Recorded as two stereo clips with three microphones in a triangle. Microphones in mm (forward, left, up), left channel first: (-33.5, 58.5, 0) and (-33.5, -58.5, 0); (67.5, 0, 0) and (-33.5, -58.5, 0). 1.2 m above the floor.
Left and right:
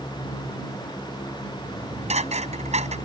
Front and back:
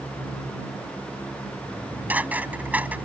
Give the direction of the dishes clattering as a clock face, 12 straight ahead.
2 o'clock.